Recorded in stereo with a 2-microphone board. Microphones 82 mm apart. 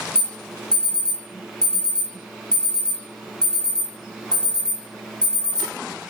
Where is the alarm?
10° left (ahead or behind), 2.0 m.